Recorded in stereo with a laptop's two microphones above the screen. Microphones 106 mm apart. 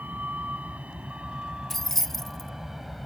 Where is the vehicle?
15° right (ahead or behind); by 3.1 s centre (ahead or behind).